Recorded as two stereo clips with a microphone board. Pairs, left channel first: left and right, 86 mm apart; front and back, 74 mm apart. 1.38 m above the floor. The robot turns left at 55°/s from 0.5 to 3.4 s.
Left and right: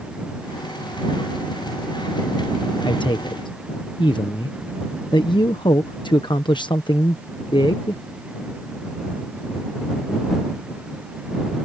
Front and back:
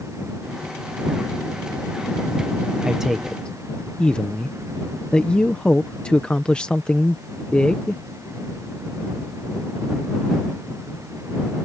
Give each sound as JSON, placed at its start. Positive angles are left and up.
{"t": 2.9, "sound": "a man speaking", "azimuth_deg": 105}